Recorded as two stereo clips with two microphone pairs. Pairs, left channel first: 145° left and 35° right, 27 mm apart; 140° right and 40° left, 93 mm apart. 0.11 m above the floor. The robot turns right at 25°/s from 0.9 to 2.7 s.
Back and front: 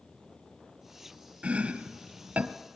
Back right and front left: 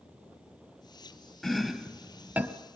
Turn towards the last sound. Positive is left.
turn(degrees=-20)